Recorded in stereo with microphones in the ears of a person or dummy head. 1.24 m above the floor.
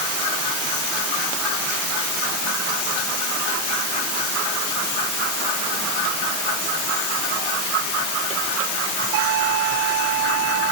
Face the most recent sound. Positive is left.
No sound to turn to.